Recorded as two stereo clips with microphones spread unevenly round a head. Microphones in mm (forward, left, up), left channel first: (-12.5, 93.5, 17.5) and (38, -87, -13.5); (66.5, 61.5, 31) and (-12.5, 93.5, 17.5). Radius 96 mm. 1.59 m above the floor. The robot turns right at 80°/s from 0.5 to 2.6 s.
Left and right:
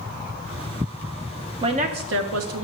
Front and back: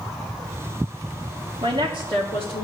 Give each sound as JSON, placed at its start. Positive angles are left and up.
{"t": 1.6, "sound": "a woman speaking", "azimuth_deg": -145, "distance_m": 1.2}